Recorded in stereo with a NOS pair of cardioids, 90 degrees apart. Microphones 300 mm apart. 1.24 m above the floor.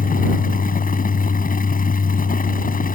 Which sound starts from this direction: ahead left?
A fan, at 0.0 s.